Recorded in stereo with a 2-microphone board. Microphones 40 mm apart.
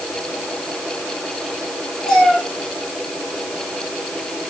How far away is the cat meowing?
About 5.5 m.